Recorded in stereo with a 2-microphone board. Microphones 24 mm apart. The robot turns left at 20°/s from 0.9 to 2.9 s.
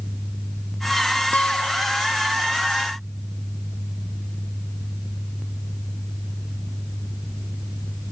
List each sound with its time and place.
1.3 s a guitar: 80° left; by 2.2 s 60° left (ahead or behind)